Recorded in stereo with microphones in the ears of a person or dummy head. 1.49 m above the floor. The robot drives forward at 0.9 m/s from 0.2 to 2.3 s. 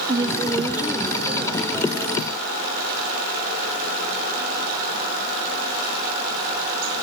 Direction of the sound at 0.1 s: 20° right (ahead or behind).